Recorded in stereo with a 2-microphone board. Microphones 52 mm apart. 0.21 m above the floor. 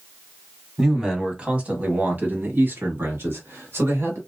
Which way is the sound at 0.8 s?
10° right (ahead or behind).